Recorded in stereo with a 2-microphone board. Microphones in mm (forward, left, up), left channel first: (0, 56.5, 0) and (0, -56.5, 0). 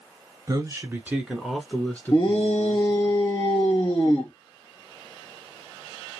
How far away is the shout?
About 1.5 m.